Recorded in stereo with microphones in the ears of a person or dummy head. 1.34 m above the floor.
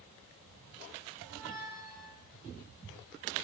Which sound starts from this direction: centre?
A squeak, at 1.2 s.